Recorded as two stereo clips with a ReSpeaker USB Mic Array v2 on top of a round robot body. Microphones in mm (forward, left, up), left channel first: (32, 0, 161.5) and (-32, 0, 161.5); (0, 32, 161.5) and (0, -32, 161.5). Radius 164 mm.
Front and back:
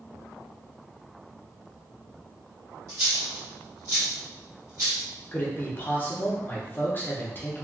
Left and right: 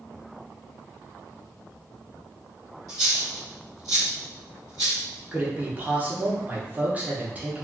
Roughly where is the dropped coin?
Behind right.